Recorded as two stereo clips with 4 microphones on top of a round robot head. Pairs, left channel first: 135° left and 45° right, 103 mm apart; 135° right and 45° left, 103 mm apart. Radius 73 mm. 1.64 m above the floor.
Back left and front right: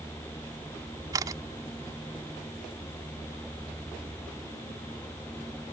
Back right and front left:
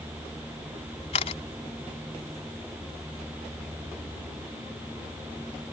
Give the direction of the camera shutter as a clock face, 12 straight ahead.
4 o'clock.